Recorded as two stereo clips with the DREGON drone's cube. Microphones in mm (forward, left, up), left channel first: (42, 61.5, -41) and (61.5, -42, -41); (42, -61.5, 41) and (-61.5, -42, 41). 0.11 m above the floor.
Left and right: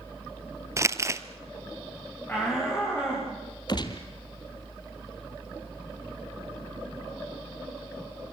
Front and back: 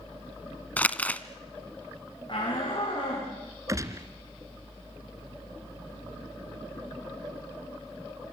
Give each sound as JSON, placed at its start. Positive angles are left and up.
{"t": 0.8, "sound": "crumpling", "azimuth_deg": -75, "distance_m": 1.1}
{"t": 2.3, "sound": "a shout", "azimuth_deg": 30, "distance_m": 8.0}
{"t": 3.7, "sound": "a gunshot", "azimuth_deg": 120, "distance_m": 2.0}